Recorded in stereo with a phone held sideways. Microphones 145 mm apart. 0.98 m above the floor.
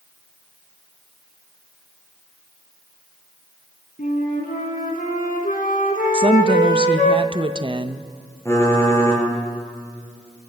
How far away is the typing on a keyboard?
About 6.5 m.